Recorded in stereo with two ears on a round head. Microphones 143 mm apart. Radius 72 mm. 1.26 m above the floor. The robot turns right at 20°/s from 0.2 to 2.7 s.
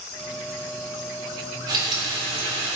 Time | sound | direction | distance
1.7 | frying | 30° right (ahead or behind) | 3 m